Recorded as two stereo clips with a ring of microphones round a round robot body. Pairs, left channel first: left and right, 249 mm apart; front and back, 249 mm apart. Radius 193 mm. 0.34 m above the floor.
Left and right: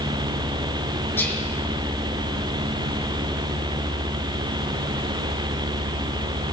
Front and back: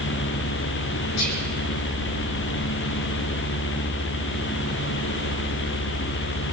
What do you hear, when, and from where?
1.2 s whispering: 10° left, 6.5 m